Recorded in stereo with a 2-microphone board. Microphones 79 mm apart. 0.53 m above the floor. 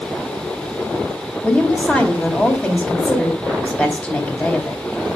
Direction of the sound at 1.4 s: 20° left (ahead or behind).